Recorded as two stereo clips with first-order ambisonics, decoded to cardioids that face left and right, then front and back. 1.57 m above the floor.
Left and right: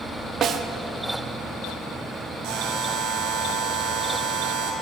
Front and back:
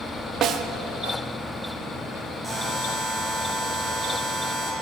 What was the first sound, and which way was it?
A snare drum, 140° right.